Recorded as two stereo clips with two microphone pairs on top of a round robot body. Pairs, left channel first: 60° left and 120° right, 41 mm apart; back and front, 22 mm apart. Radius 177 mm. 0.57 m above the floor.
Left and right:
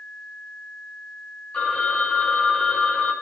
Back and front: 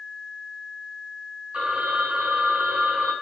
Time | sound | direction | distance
1.5 | a phone ringing | 5° right | 5 m